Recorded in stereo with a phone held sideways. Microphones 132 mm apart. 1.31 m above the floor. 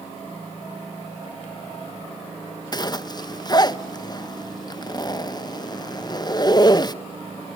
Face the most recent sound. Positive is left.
turn(degrees=30)  # may be behind; listen again after turning